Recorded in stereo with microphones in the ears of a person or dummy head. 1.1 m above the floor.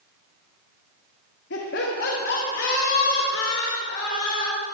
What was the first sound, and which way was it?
Laughter, 60° left (ahead or behind).